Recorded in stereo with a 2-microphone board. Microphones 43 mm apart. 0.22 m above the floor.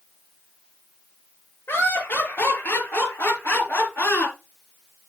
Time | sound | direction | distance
1.7 | laughter | 50° left (ahead or behind) | 5 m